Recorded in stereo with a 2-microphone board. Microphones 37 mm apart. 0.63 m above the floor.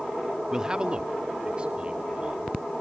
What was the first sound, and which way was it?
A man speaking, 20° right (ahead or behind).